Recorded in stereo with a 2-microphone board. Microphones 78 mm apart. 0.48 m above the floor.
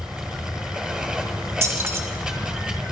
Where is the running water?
5° right (ahead or behind), 1.6 m.